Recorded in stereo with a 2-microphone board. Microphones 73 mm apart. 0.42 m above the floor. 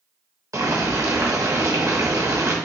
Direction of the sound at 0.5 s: 45° right (ahead or behind).